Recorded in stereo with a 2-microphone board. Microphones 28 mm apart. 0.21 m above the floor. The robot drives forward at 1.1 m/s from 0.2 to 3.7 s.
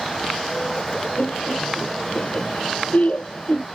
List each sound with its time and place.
1.2 s laughter: 50° left (ahead or behind); by 3.7 s 45° left (ahead or behind)